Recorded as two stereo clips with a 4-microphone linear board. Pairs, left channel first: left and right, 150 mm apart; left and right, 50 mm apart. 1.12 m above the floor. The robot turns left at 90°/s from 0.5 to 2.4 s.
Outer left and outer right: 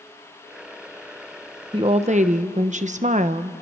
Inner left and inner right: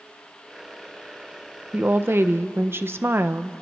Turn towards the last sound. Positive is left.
turn(degrees=-100)